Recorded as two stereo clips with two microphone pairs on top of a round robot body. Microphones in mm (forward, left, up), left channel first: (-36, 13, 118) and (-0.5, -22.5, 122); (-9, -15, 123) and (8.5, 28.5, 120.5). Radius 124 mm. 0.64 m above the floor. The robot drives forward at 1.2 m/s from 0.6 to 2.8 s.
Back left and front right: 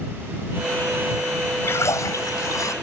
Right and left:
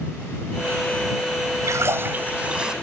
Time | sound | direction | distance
1.6 | a splash | 85° left | ?